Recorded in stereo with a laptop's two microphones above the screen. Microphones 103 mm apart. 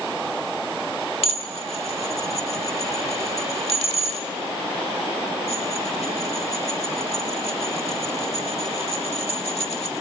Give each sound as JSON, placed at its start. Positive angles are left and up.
{"t": 1.2, "sound": "dishes clattering", "side_deg": 85, "distance_m": 1.7}